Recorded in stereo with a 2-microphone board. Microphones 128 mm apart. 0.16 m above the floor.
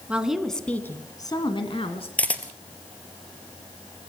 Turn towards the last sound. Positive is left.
turn(degrees=10)  # may be behind; listen again after turning